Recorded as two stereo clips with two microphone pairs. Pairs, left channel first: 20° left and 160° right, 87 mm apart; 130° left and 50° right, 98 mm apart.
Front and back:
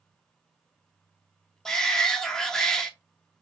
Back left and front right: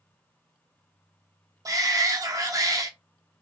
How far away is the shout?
About 0.9 m.